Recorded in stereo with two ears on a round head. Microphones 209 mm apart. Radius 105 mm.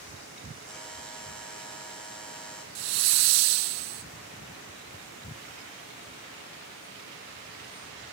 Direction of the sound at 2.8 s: 80° right.